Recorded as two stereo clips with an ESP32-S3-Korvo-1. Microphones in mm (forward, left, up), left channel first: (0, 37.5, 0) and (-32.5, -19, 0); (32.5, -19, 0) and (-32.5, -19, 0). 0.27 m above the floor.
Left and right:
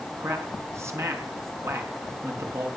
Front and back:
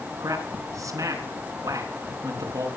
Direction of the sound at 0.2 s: 160° right.